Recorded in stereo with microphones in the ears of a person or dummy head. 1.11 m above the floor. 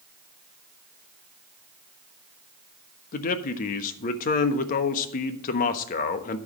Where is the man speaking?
45° left (ahead or behind), 1.1 m.